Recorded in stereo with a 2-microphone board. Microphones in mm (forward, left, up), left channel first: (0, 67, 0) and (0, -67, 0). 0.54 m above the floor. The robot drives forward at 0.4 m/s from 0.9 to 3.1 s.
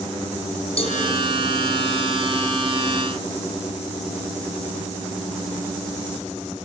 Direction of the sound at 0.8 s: 50° left (ahead or behind).